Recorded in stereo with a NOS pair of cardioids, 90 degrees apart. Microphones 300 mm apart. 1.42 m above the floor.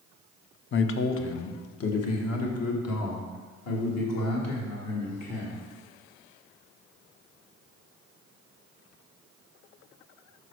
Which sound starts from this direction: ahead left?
A man speaking, at 0.7 s.